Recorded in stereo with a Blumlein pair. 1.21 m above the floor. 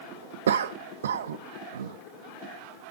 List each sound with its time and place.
0.5 s a cough: 65° right, 0.5 m